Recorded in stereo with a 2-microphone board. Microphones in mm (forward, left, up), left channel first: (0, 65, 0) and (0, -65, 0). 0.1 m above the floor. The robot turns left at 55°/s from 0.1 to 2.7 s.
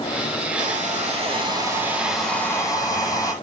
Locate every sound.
0.6 s a hair dryer: 95° right, 3 m; by 3.3 s 150° left, 3 m